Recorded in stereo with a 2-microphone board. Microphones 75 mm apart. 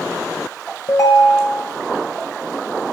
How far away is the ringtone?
About 0.7 m.